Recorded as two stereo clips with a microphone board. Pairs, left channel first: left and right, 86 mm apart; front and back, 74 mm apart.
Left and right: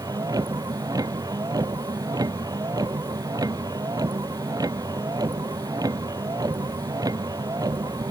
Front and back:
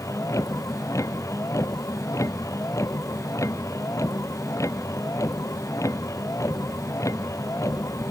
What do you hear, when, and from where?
0.0 s a vehicle: 45° right